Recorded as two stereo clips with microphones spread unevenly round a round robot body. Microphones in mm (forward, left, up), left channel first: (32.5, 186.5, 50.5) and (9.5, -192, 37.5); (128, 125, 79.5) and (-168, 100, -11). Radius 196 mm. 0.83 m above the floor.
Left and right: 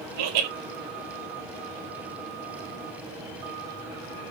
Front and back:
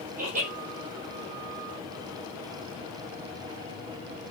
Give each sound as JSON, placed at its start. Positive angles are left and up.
{"t": 0.2, "sound": "laughter", "azimuth_deg": -110, "distance_m": 4.5}